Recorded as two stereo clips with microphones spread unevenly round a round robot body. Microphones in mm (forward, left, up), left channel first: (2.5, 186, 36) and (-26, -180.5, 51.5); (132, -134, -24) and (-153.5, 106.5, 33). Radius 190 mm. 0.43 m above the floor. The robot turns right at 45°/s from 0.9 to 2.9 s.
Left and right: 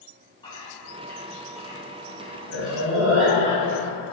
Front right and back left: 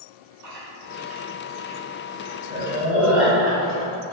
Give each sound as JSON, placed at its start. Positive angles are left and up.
{"t": 0.4, "sound": "chewing", "azimuth_deg": 155, "distance_m": 1.4}